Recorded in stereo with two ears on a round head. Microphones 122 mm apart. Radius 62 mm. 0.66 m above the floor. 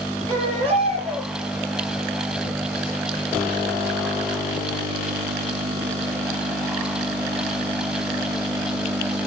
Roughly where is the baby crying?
Right.